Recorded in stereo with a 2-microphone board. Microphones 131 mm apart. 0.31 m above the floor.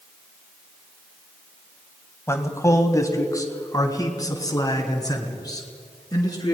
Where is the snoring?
No snoring in this recording.